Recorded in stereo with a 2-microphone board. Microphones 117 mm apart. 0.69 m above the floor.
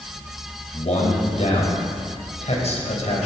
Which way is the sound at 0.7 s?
70° left (ahead or behind).